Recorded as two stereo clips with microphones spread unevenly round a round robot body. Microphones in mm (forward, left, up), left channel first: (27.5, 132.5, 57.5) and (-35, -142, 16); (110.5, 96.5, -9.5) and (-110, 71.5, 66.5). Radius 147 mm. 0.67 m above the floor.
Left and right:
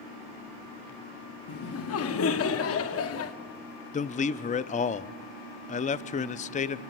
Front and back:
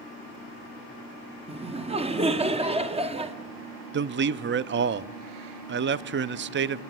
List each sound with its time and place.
1.5 s laughter: 115° left, 1.8 m
3.9 s a man speaking: 140° left, 0.6 m